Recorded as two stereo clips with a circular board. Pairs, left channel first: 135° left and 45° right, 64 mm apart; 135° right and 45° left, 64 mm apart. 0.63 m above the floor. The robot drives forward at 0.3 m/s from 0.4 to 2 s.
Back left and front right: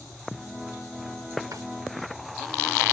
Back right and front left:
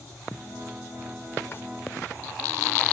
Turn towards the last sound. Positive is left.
turn(degrees=-80)